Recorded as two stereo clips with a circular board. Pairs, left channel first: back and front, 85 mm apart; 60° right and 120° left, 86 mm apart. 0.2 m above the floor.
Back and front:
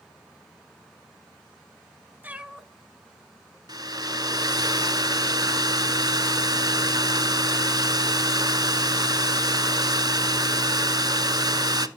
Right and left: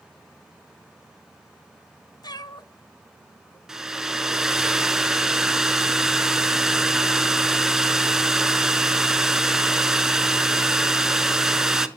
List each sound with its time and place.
2.2 s a cat meowing: 65° right, 0.6 m; by 3.6 s 120° right, 1.0 m
3.7 s a hair dryer: 35° left, 0.6 m